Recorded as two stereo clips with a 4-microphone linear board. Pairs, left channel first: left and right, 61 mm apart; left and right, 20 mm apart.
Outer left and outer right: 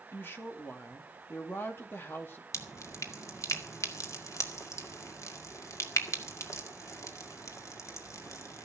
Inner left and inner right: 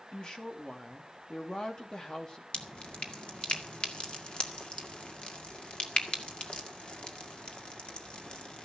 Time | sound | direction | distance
0.1 | a woman speaking | 35° left (ahead or behind) | 2.5 m
2.5 | dripping | 55° left (ahead or behind) | 1.9 m